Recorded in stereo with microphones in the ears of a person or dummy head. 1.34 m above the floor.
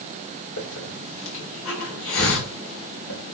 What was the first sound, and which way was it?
A hiss, 80° left.